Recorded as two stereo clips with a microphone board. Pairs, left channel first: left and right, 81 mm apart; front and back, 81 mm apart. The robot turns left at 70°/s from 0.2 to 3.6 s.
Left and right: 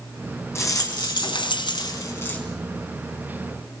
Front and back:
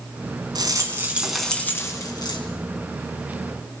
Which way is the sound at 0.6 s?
150° left.